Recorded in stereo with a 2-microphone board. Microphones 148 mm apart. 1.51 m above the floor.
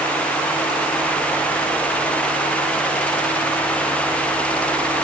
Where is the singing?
No singing in this recording.